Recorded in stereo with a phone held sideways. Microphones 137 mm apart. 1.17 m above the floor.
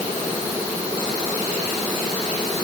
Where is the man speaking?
I don't hear a man speaking.